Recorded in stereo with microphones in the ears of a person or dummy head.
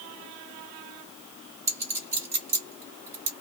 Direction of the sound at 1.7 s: 15° right (ahead or behind).